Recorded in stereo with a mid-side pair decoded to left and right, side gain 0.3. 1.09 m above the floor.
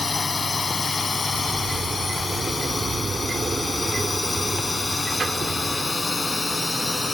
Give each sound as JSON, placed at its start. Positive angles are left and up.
{"t": 0.0, "sound": "a drone", "azimuth_deg": 40}
{"t": 1.3, "sound": "a sliding door", "azimuth_deg": -60}